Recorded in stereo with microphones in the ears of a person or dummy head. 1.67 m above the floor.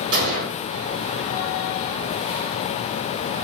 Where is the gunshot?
70° right (ahead or behind), 1.5 m.